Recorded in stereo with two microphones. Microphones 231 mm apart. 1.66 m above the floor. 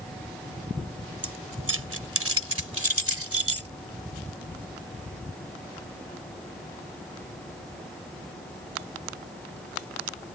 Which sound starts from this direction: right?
Keys jangling, at 1.2 s.